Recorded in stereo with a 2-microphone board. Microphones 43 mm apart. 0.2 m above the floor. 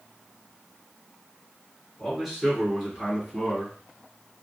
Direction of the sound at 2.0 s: 5° right (ahead or behind).